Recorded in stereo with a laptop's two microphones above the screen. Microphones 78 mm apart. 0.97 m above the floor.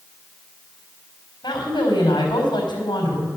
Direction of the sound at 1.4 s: 80° left.